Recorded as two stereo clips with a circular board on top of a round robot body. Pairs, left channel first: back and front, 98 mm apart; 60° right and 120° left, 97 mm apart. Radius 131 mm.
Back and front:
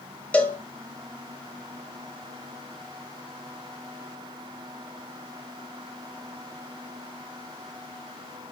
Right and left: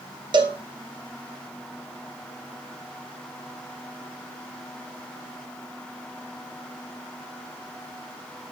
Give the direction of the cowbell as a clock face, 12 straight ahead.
8 o'clock.